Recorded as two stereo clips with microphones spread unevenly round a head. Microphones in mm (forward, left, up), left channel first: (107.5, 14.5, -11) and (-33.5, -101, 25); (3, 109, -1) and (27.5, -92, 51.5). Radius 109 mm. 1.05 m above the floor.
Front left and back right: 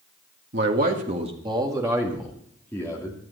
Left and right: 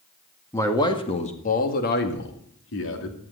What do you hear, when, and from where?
0.5 s a man speaking: 170° left, 1.9 m; by 3.2 s 115° left, 2.5 m